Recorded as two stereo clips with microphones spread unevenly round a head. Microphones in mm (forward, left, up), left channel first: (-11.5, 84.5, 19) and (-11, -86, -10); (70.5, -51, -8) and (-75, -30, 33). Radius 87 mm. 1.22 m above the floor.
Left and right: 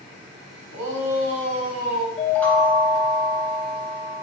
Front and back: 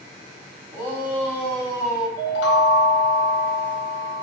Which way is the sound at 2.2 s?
10° left.